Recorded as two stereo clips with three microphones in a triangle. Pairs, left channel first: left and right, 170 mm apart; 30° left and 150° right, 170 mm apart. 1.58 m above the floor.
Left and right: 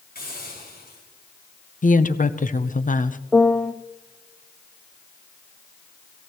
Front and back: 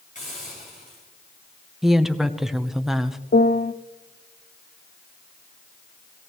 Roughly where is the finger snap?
No finger snap in this recording.